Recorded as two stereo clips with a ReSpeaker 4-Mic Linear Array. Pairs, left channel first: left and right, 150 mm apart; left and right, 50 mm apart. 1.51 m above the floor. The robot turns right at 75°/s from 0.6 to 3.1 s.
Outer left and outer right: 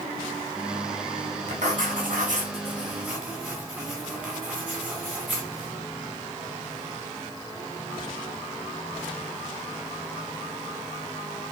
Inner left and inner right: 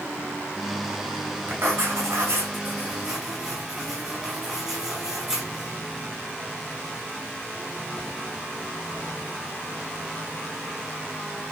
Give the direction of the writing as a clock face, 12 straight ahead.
4 o'clock.